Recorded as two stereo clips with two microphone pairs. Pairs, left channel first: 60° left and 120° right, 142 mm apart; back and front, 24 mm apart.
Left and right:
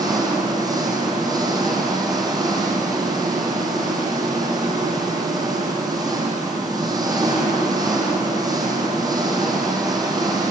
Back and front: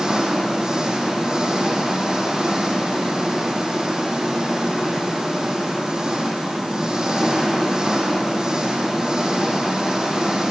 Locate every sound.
0.0 s an engine running: 55° right, 4 m